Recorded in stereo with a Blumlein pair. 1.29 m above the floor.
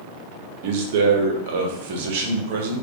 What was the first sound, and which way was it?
A man speaking, 55° right.